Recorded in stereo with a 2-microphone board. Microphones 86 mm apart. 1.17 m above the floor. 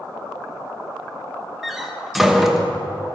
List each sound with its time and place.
1.6 s a door slam: 5° right (ahead or behind), 0.9 m